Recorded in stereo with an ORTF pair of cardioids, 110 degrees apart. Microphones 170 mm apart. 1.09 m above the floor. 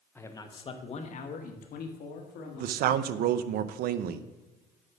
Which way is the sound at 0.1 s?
15° left.